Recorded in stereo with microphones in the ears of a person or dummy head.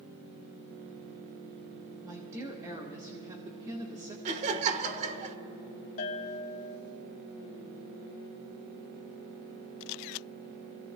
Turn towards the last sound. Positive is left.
turn(degrees=45)  # may be behind; listen again after turning